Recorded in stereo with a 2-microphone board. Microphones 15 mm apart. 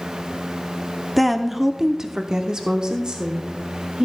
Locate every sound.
1.2 s a woman speaking: 5° left (ahead or behind), 0.9 m; by 4.1 s 65° right (ahead or behind), 2.0 m